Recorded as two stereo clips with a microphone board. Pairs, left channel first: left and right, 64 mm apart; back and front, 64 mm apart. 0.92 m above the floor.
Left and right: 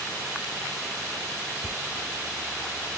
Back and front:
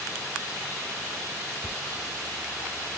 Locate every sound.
1.6 s footsteps: 90° left